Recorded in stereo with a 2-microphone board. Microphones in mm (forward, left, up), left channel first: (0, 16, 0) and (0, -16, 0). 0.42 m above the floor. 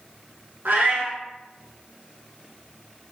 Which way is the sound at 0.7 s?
70° right (ahead or behind).